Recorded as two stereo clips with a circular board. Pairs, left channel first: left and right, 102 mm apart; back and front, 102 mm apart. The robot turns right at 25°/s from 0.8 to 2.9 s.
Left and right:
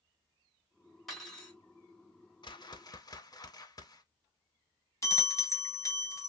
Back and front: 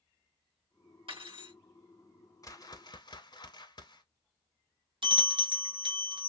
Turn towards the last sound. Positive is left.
turn(degrees=35)